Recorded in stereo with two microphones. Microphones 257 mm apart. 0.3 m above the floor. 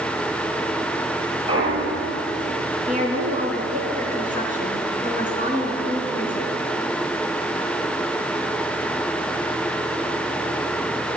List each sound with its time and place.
1.5 s a clunk: 20° right (ahead or behind), 4 m
2.9 s a woman speaking: 30° right (ahead or behind), 3.5 m